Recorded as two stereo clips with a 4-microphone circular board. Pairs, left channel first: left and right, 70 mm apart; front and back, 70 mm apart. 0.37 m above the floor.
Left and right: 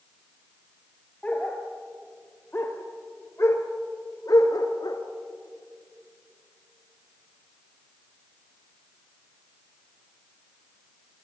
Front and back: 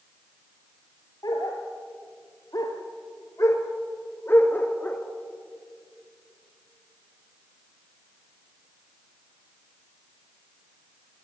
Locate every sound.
1.2 s a dog barking: 20° left, 2.5 m; by 5.0 s 70° left, 1.6 m